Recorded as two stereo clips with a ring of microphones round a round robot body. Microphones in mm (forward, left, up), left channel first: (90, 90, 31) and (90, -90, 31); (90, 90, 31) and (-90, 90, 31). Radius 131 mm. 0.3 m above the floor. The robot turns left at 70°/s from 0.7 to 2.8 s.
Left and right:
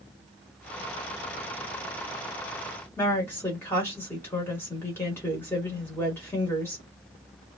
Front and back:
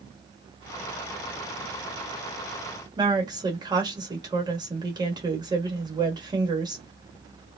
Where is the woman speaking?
155° left, 1.2 m.